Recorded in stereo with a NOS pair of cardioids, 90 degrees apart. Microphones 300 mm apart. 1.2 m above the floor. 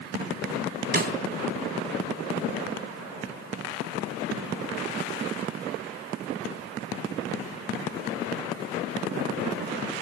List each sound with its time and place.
0.9 s a snare drum: 35° right, 3.5 m